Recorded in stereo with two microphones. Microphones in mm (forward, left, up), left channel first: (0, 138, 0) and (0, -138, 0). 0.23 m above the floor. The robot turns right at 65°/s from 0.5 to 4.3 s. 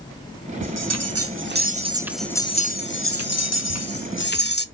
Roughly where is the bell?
Right.